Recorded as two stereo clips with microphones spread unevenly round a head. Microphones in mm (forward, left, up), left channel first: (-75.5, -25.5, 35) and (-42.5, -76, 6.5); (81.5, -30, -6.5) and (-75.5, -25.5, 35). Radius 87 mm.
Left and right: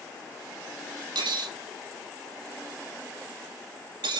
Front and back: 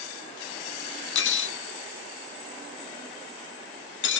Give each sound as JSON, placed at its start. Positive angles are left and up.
{"t": 1.1, "sound": "cutlery clinking", "azimuth_deg": -15, "distance_m": 0.8}